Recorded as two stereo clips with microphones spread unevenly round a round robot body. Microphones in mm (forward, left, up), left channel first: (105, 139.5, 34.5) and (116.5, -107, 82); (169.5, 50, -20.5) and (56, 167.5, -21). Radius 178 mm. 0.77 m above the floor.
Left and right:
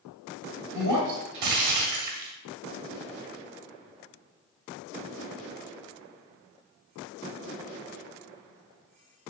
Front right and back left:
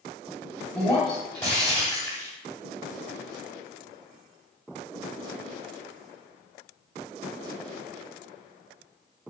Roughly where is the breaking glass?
Behind right.